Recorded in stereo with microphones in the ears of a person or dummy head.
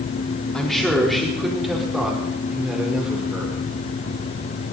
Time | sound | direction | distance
0.5 | a man speaking | 5° left (ahead or behind) | 3.5 m